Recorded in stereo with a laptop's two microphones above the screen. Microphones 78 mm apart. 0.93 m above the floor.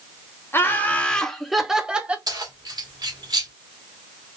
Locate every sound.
0.5 s laughter: 30° left (ahead or behind), 0.8 m; by 2.2 s 15° right (ahead or behind), 1.0 m
2.3 s keys jangling: 55° right (ahead or behind), 1.5 m